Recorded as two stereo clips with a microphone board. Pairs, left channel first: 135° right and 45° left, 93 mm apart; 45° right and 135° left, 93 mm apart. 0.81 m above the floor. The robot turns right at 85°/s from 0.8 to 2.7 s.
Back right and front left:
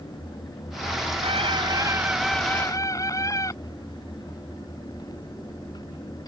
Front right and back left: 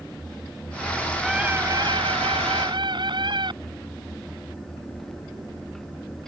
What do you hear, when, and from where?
1.2 s a scream: 45° left; by 3.5 s 170° left